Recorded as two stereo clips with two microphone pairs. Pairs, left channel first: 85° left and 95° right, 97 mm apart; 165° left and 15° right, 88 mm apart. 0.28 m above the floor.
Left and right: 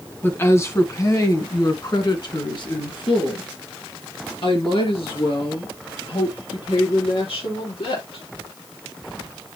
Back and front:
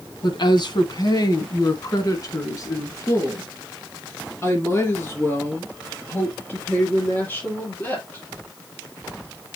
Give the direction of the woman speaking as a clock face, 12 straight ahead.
7 o'clock.